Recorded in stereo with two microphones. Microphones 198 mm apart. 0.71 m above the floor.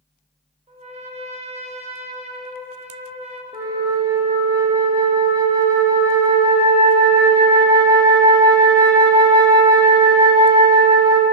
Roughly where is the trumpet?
Right.